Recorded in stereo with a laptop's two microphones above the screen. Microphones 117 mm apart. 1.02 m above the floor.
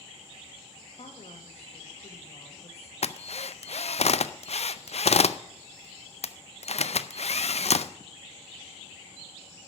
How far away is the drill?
About 0.5 m.